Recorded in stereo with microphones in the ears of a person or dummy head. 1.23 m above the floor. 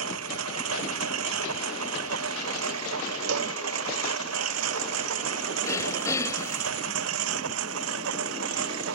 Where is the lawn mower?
80° right.